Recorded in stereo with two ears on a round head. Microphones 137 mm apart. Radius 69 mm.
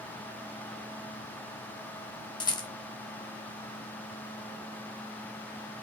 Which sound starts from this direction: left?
A rattle, at 2.4 s.